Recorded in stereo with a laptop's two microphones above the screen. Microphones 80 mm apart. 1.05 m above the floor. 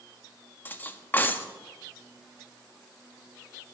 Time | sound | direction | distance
0.7 | cutlery clinking | 25° left (ahead or behind) | 0.7 m